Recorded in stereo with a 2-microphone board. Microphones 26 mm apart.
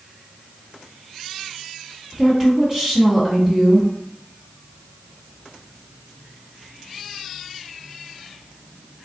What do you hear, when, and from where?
2.1 s a woman speaking: 25° right (ahead or behind), 1.6 m